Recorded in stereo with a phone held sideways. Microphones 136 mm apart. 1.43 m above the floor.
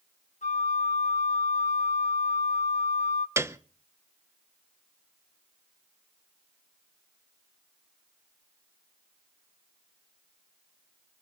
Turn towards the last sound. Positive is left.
turn(degrees=-20)  # may be behind; listen again after turning